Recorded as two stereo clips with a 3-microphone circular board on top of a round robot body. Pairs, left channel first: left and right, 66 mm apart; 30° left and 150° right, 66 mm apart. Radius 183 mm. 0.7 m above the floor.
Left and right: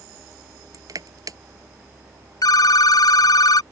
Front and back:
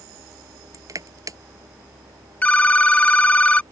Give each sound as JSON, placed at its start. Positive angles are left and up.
{"t": 0.7, "sound": "crushing", "azimuth_deg": -115}
{"t": 2.4, "sound": "a phone ringing", "azimuth_deg": 100}